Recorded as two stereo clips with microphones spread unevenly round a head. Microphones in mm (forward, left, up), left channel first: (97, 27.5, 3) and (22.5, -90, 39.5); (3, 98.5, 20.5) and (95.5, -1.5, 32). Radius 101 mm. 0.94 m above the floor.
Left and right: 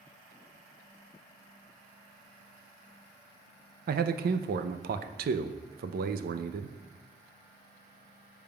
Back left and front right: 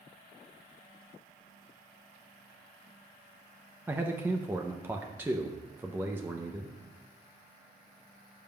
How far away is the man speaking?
About 0.5 m.